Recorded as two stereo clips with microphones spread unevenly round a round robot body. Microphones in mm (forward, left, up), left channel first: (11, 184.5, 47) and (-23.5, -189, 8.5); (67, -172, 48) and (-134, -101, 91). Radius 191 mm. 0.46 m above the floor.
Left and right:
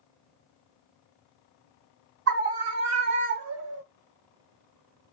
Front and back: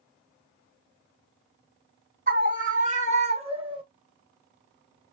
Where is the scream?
145° right, 2.5 m; by 3.8 s 125° right, 2.0 m.